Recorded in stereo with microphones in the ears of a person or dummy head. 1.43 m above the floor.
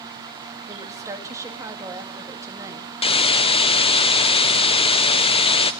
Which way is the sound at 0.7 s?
15° right (ahead or behind).